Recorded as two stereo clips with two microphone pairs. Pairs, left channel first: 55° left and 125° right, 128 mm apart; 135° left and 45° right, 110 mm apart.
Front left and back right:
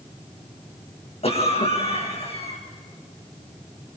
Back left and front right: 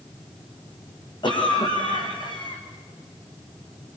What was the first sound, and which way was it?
A cough, 90° left.